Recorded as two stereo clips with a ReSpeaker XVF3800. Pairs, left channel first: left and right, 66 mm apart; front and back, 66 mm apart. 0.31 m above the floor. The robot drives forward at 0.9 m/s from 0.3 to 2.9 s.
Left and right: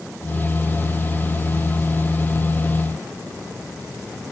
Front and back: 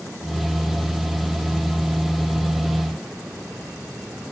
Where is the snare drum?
No snare drum in this recording.